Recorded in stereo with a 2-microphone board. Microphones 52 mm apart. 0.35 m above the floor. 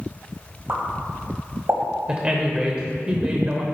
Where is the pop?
55° right (ahead or behind), 1.9 m.